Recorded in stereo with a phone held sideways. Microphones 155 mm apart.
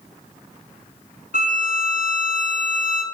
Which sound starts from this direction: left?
A violin, at 1.3 s.